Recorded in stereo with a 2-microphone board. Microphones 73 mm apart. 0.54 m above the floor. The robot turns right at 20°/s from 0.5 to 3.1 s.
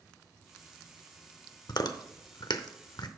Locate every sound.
1.7 s chewing: 70° left (ahead or behind), 0.6 m